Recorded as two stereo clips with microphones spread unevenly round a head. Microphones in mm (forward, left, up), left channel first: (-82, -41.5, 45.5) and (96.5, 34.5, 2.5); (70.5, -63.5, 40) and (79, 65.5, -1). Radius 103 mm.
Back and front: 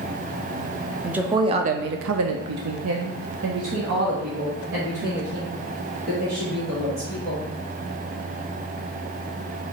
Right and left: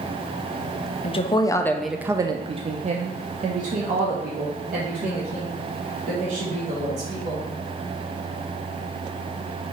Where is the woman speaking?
70° right, 0.6 m; by 7.4 s 70° left, 3 m.